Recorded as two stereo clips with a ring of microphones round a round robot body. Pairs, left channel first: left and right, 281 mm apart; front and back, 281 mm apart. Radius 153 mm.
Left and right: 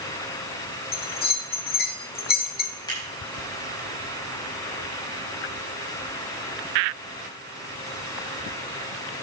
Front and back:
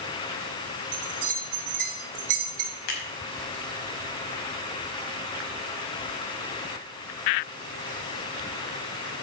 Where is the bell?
150° left, 1.5 m.